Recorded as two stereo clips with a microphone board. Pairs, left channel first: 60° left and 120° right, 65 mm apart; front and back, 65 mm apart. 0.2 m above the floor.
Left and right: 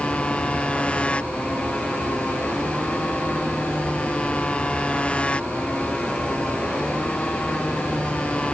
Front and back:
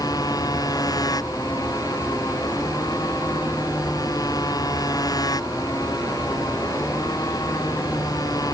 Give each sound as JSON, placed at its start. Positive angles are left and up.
{"t": 0.0, "sound": "a motorcycle", "azimuth_deg": -15}